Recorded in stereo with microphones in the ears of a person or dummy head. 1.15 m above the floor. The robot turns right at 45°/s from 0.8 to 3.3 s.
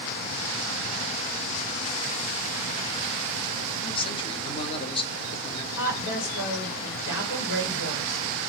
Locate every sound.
3.8 s a man speaking: 30° left (ahead or behind), 0.7 m
5.7 s a woman speaking: 70° left (ahead or behind), 1.9 m